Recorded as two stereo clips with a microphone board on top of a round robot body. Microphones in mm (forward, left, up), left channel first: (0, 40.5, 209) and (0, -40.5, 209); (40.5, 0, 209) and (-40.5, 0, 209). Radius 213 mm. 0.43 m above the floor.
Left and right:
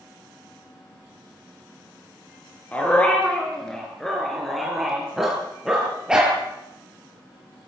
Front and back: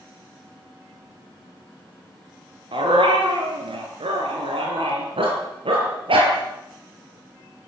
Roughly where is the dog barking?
Behind.